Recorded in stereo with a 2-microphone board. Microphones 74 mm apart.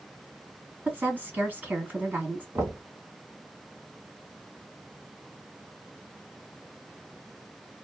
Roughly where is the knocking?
Right.